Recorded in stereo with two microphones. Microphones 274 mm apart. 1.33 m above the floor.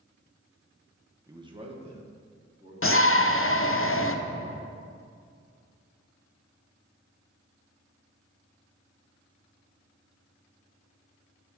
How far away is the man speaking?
About 0.8 m.